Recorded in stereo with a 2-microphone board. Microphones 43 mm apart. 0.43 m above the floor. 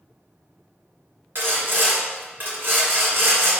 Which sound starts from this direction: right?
Sawing, at 1.4 s.